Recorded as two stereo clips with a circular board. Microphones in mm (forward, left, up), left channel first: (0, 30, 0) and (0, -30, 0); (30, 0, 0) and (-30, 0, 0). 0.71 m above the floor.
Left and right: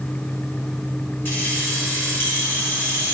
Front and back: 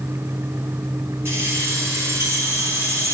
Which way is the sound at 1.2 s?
140° left.